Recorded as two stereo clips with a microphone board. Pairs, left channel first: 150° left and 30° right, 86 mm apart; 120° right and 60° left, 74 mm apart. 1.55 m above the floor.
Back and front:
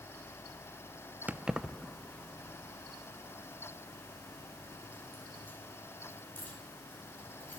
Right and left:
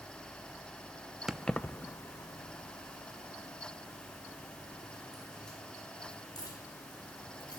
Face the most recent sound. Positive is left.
turn(degrees=-140)